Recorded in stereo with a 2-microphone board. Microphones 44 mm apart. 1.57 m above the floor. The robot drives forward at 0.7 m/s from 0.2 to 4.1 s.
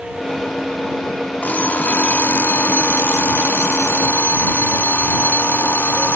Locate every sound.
1.4 s an alarm clock: 45° left (ahead or behind); by 6.2 s 60° left (ahead or behind)